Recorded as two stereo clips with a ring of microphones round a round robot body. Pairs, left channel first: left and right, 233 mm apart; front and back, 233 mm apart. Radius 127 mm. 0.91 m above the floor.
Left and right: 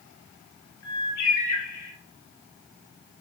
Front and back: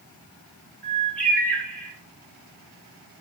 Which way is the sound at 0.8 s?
85° left.